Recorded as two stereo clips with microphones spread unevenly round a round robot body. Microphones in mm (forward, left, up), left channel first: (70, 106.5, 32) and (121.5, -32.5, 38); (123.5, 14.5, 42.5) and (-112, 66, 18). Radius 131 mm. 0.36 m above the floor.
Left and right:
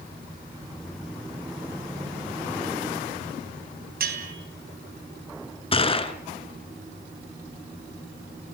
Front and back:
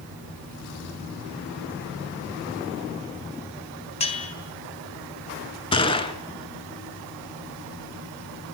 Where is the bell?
80° right, 3.5 m.